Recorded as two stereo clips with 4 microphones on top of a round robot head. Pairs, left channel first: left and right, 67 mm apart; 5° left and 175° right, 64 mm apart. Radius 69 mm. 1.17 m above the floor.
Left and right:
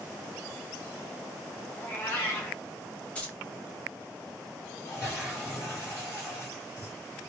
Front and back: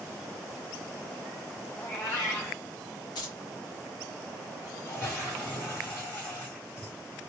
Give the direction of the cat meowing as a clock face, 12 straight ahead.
11 o'clock.